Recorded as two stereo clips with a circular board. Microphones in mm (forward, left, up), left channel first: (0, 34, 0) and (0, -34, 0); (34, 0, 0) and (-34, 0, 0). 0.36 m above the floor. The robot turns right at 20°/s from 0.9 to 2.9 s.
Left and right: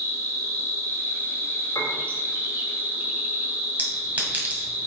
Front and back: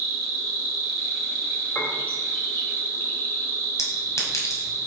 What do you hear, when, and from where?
0.0 s an insect: 80° right, 2 m; by 4.9 s 40° right, 2 m
1.8 s a piano: 65° left, 2.5 m; by 2.0 s 70° left, 2.5 m
3.8 s a clink: 30° right, 1.9 m